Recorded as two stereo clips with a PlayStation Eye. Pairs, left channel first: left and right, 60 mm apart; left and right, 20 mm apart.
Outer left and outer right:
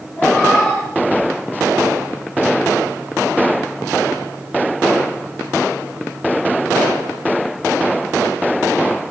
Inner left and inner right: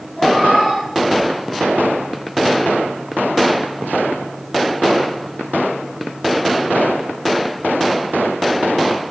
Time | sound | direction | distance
0.1 | a cat meowing | 20° left (ahead or behind) | 8.5 m